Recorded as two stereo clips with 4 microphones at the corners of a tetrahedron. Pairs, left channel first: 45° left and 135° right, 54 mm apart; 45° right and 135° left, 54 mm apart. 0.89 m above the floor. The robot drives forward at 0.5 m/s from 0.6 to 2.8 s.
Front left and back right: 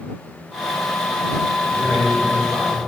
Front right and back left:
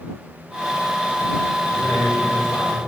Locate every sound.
1.7 s a man speaking: 55° right, 3.5 m; by 2.8 s 65° right, 3.5 m